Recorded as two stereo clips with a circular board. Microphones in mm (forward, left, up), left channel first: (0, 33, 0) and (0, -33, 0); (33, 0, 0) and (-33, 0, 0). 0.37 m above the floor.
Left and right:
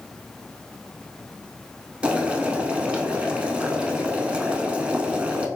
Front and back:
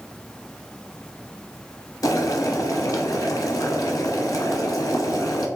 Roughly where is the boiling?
Ahead.